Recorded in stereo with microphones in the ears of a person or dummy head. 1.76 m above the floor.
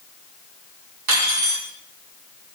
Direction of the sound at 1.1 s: 70° right (ahead or behind).